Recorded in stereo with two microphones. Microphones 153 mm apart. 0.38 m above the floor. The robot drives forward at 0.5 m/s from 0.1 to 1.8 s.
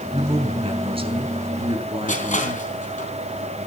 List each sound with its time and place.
0.1 s a woman speaking: 40° right (ahead or behind), 4 m; by 2.6 s 35° right (ahead or behind), 4.5 m
2.1 s crushing: 50° left (ahead or behind), 3.5 m